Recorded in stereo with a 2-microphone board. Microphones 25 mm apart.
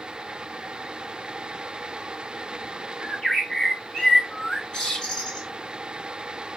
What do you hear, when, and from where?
3.0 s a bird: 30° left (ahead or behind), 1.7 m